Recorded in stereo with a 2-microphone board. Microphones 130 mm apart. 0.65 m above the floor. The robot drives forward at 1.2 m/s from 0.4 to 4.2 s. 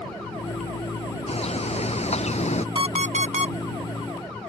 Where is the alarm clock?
40° right (ahead or behind); by 3.5 s 45° right (ahead or behind).